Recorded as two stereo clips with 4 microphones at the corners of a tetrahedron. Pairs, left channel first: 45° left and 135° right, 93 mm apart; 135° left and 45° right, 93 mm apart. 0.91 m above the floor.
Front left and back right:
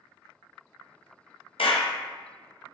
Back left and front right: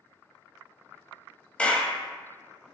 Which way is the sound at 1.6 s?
60° left.